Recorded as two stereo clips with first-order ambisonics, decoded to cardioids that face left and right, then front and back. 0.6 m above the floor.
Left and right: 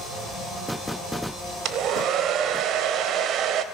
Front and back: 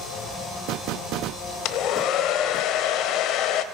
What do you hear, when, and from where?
1.6 s a hair dryer: 40° right, 0.9 m